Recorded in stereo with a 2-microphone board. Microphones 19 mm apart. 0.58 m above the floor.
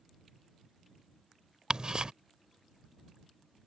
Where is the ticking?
40° right (ahead or behind).